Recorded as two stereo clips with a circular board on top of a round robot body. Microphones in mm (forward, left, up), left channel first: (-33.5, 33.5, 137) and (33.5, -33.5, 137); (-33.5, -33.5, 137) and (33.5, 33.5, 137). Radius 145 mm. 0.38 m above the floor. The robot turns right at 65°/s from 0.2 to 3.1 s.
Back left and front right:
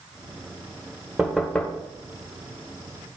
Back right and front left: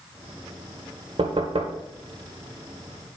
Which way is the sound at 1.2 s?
35° left.